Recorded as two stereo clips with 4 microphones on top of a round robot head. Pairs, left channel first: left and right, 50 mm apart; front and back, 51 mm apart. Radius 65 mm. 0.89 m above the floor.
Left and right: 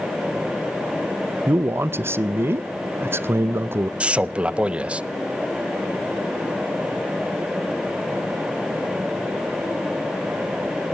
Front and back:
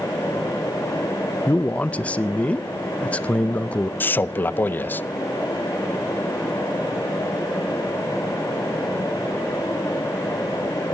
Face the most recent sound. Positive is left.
turn(degrees=-30)